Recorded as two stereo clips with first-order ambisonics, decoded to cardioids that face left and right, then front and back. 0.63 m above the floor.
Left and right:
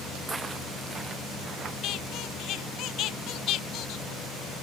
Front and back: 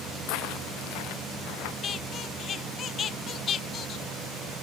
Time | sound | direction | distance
0.3 | footsteps | 10° right | ?
1.8 | a squeak | 55° left | ?